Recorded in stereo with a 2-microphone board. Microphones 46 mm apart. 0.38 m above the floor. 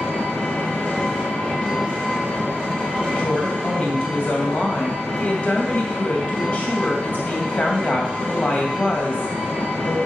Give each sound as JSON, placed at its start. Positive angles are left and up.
{"t": 0.0, "sound": "an engine running", "side_deg": 25, "distance_m": 6.5}
{"t": 3.1, "sound": "a woman speaking", "side_deg": 35, "distance_m": 2.5}